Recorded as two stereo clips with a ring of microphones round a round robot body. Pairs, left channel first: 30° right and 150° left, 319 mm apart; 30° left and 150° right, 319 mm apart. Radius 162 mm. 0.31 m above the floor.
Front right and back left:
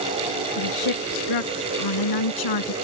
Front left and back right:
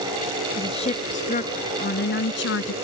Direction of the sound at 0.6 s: 45° right.